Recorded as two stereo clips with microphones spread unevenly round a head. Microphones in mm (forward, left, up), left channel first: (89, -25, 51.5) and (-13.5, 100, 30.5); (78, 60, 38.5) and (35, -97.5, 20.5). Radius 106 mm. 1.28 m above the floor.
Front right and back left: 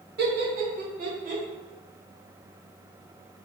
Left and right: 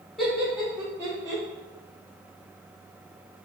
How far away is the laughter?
About 1.6 m.